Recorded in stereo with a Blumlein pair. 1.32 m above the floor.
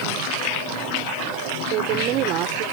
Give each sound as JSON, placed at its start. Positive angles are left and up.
{"t": 1.7, "sound": "a woman speaking", "azimuth_deg": -35}